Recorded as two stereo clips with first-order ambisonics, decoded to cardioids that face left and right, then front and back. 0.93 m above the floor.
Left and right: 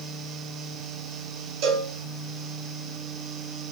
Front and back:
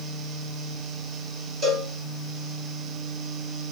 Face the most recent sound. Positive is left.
turn(degrees=-110)